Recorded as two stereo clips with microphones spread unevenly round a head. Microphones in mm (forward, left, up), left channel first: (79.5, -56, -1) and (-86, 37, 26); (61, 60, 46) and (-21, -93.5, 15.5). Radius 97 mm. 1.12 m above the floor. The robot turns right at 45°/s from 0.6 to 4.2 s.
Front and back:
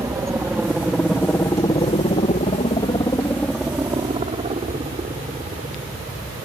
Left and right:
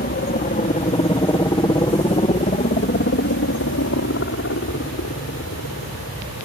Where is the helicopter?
75° left; by 6.5 s 85° left.